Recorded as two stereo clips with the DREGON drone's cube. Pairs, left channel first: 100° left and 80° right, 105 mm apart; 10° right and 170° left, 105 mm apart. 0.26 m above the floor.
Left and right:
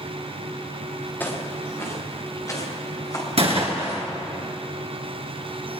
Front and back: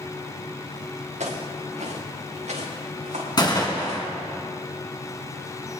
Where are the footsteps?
175° left, 3 m; by 4.0 s 155° left, 6 m.